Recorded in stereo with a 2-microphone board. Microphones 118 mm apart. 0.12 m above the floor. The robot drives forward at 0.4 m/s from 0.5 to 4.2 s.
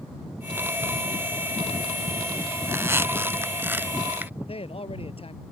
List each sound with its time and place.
2.6 s a squeak: 20° right (ahead or behind); by 4.3 s 15° right (ahead or behind)
4.4 s a man speaking: 55° left (ahead or behind)